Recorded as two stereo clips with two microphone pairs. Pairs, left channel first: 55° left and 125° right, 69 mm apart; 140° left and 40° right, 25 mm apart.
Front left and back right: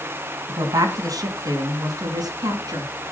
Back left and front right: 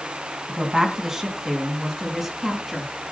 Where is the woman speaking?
115° right, 2.5 m; by 3.1 s 130° right, 4 m.